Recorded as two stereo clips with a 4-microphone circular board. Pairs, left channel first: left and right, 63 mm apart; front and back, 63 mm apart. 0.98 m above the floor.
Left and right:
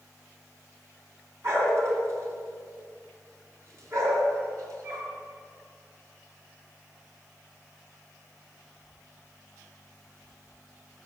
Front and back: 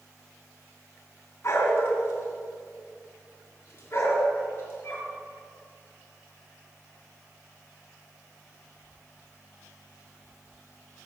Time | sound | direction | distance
1.4 | a dog barking | 45° right | 3 m